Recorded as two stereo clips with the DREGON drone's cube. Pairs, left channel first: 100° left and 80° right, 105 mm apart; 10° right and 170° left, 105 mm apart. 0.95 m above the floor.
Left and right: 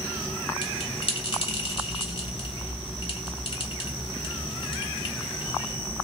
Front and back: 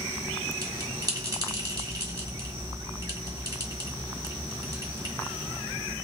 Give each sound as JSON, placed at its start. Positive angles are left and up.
{"t": 0.6, "sound": "a bell", "azimuth_deg": 120, "distance_m": 1.4}